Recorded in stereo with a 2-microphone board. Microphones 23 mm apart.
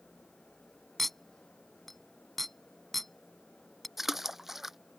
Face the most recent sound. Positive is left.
turn(degrees=-10)  # may be behind; listen again after turning